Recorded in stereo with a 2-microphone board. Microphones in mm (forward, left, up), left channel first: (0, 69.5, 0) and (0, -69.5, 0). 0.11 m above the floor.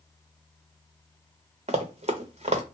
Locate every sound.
1.7 s running footsteps: 45° right (ahead or behind), 0.9 m